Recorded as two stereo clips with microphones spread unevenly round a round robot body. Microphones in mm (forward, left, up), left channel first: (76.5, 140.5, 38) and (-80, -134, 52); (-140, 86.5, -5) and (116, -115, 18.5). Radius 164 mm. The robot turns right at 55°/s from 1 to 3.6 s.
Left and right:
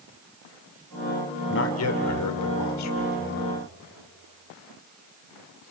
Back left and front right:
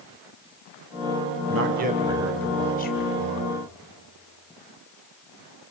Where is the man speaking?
10° left, 2 m; by 3.5 s 120° left, 2 m.